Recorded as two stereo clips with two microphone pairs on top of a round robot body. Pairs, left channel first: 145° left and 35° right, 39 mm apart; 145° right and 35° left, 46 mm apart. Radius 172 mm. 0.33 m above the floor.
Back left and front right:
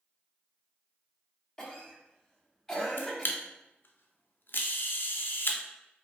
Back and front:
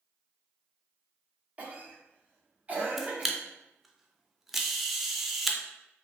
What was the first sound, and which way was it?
A cough, 75° left.